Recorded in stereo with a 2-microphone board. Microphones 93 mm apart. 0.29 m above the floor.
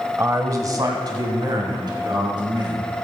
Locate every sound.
0.2 s a man speaking: 30° right (ahead or behind), 1.1 m; by 2.9 s 50° right (ahead or behind), 4.5 m